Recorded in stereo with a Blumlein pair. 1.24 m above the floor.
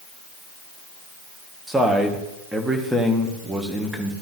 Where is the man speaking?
5° right, 1.7 m.